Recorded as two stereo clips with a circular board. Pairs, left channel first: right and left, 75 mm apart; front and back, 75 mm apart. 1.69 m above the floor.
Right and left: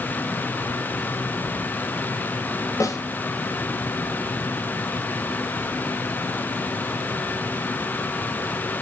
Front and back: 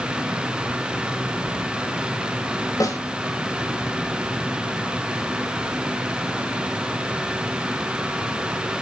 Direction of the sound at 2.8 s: 40° right.